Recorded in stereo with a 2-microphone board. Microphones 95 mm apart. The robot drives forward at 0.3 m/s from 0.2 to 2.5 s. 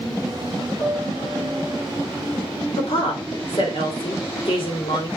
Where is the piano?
85° left, 4 m; by 1.8 s 80° left, 4 m.